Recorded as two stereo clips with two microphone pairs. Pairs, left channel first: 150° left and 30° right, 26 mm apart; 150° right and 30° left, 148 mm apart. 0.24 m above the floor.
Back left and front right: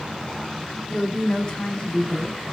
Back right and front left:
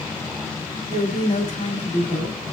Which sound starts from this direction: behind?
A woman speaking, at 0.9 s.